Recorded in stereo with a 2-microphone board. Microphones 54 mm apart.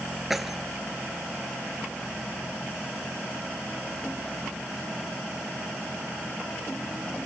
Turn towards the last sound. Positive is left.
turn(degrees=-5)  # may be behind; listen again after turning